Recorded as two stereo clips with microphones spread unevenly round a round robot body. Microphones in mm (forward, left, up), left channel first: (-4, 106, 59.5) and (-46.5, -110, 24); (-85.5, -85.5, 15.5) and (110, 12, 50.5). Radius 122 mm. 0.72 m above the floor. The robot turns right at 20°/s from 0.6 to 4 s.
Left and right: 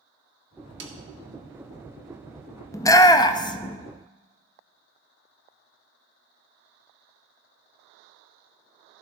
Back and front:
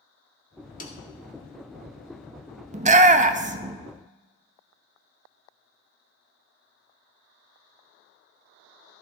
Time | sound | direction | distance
0.8 | a snare drum | 115° right | 1.8 m
2.7 | a shout | straight ahead | 0.7 m